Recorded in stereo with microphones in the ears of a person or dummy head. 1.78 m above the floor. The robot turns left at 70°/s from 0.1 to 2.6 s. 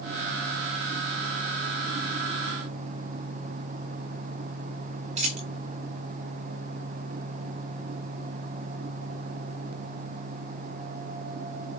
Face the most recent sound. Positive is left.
turn(degrees=-40)  # may be behind; listen again after turning